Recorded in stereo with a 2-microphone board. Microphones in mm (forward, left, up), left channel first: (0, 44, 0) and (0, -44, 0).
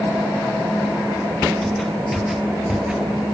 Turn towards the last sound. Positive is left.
turn(degrees=-10)  # may be behind; listen again after turning